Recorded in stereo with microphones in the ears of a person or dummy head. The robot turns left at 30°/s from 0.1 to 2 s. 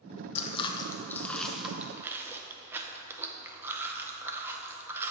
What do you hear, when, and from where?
0.3 s chewing: 35° left (ahead or behind), 0.6 m; by 5.1 s 10° right (ahead or behind), 0.6 m